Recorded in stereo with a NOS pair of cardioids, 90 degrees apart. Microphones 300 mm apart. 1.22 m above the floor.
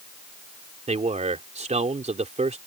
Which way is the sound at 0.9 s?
25° right.